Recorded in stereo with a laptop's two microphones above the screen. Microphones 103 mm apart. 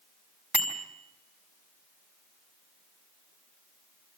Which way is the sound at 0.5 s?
15° right (ahead or behind).